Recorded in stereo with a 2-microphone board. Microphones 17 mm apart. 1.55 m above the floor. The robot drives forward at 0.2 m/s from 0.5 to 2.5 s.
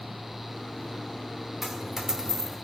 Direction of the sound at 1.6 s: 20° right (ahead or behind).